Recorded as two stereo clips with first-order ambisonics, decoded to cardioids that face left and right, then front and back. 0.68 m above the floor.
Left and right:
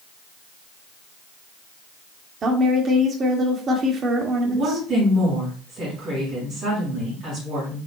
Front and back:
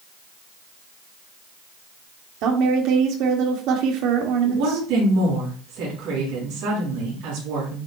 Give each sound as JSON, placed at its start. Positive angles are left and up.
{"t": 2.4, "sound": "a woman speaking", "azimuth_deg": -155, "distance_m": 1.6}
{"t": 4.4, "sound": "a woman speaking", "azimuth_deg": -145, "distance_m": 5.0}